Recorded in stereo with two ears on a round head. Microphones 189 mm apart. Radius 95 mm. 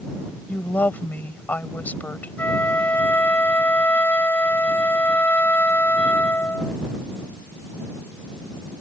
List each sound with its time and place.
0.5 s a woman speaking: 10° left (ahead or behind)
2.4 s a flute: 10° left (ahead or behind)